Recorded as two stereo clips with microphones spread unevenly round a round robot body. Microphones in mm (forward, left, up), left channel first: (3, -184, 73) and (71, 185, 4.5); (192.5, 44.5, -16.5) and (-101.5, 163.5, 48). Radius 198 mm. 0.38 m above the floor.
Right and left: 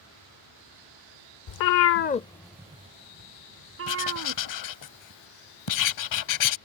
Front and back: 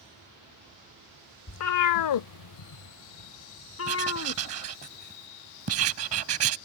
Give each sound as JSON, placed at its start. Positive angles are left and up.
{"t": 1.5, "sound": "a cat meowing", "azimuth_deg": -65}
{"t": 3.9, "sound": "writing", "azimuth_deg": -145}